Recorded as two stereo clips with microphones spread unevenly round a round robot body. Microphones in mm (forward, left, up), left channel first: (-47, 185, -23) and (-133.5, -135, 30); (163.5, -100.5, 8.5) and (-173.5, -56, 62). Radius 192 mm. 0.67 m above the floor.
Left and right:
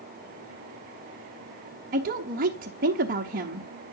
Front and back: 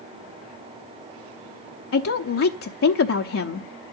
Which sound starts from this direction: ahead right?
A woman speaking, at 1.9 s.